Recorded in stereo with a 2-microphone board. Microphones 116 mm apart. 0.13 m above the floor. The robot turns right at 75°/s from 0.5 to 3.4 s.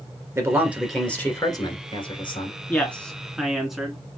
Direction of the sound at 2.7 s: 15° left (ahead or behind).